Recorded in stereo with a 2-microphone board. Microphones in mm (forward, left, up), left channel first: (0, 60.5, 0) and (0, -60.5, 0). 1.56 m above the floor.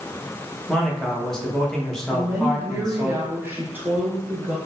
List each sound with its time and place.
0.7 s a man speaking: 5° left (ahead or behind), 1.0 m
2.1 s a woman speaking: 15° right (ahead or behind), 0.7 m